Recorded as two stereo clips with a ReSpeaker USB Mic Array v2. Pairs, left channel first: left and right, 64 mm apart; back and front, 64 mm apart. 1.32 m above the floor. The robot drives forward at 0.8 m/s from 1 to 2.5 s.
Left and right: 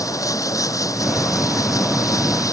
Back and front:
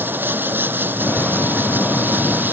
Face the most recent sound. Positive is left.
turn(degrees=60)